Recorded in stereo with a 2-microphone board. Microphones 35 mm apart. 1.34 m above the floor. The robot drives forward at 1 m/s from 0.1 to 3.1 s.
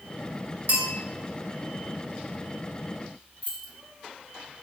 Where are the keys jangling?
55° right (ahead or behind), 3 m.